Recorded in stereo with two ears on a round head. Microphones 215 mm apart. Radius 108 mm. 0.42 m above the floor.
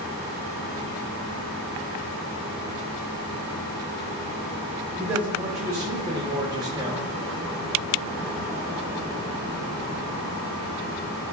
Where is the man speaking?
15° right (ahead or behind), 1.4 m.